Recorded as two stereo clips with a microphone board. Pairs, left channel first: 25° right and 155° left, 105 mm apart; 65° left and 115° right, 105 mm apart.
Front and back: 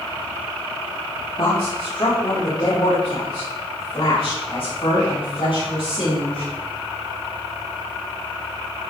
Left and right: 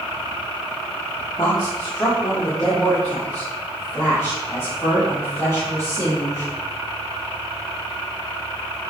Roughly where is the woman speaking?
Ahead.